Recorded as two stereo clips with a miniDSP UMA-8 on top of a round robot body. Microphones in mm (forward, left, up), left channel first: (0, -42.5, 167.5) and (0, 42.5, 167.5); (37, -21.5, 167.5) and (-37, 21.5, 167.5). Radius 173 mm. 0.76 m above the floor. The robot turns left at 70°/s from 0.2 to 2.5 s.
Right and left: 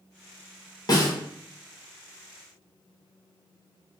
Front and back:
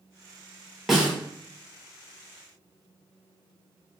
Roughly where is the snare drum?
Behind right.